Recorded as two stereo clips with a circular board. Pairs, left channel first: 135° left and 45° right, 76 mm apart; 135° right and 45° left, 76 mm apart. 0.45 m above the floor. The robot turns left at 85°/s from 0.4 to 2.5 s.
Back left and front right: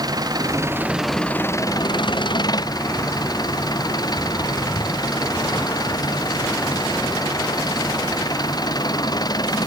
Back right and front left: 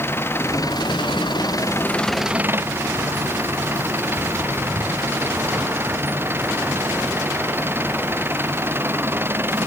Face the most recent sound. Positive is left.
turn(degrees=105)